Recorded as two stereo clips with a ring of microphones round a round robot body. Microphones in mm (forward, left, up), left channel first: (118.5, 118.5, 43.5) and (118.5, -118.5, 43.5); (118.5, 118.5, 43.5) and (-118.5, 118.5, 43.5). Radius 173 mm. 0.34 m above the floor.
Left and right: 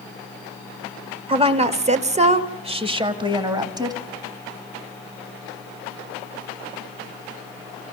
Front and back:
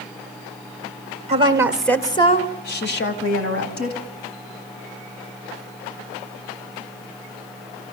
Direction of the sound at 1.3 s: 140° right.